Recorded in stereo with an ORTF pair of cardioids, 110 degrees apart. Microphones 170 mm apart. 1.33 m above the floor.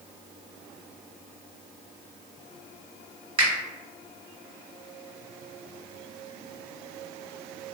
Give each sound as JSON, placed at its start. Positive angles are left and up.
{"t": 3.4, "sound": "a finger snap", "azimuth_deg": -35, "distance_m": 1.6}